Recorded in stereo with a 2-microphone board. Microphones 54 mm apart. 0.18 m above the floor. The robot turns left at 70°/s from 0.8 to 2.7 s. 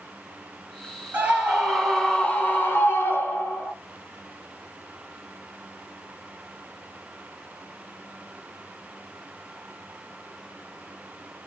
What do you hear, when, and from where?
1.1 s a scream: 135° right, 1.4 m; by 3.7 s 120° left, 1.4 m